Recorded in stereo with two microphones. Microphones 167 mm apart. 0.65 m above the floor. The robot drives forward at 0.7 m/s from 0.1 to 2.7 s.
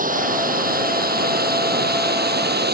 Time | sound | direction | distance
0.0 | running water | 55° right (ahead or behind) | ?